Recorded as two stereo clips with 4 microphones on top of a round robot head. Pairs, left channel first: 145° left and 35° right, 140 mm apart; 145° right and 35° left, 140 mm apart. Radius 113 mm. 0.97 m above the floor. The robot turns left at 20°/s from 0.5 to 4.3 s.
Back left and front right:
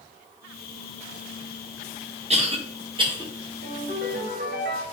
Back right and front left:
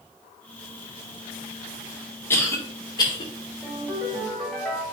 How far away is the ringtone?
About 2.5 m.